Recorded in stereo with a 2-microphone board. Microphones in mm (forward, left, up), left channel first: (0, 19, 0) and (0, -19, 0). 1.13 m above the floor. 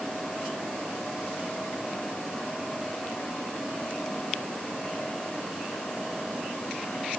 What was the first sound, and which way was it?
Only background noise.